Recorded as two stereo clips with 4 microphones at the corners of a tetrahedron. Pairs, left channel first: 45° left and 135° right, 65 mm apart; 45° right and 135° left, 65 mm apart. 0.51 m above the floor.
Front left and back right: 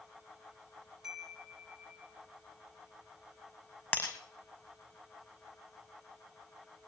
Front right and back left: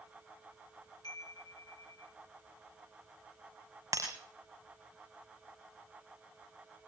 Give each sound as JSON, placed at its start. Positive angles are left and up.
{"t": 1.0, "sound": "a chime", "azimuth_deg": -55, "distance_m": 7.0}
{"t": 3.9, "sound": "breaking glass", "azimuth_deg": 100, "distance_m": 5.0}